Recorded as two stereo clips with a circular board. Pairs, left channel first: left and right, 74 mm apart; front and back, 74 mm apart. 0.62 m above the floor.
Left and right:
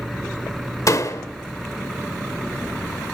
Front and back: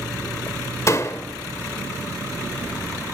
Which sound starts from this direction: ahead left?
A door slam, at 0.9 s.